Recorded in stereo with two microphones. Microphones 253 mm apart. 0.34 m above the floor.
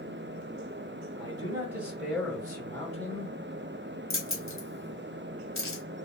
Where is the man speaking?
20° right (ahead or behind), 1.1 m; by 3.4 s 30° left (ahead or behind), 1.3 m.